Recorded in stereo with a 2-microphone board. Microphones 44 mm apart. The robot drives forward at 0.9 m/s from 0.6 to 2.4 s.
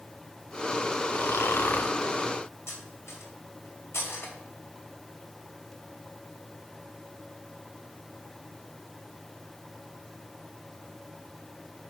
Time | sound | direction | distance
1.1 | snoring | 60° left (ahead or behind) | 0.6 m
2.7 | cutlery clinking | 75° left (ahead or behind) | 2.5 m